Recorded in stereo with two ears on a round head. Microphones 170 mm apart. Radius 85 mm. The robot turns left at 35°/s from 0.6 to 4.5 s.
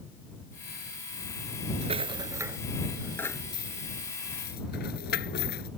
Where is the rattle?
35° right (ahead or behind); by 5.7 s 55° left (ahead or behind).